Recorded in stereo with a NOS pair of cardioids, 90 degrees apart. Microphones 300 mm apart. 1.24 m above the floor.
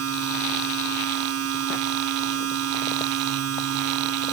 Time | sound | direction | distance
0.0 | a machine running | 55° right | ?